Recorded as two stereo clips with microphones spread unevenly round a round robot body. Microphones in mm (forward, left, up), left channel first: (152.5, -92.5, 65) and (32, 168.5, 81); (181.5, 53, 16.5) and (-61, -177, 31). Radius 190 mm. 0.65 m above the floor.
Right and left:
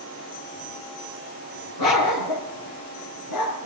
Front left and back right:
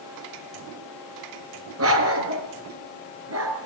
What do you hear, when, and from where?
1.8 s a dog barking: 90° right, 4 m